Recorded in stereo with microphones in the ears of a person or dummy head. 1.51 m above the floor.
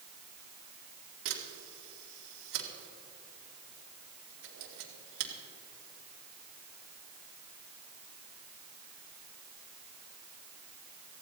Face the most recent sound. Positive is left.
turn(degrees=-75)  # may be behind; listen again after turning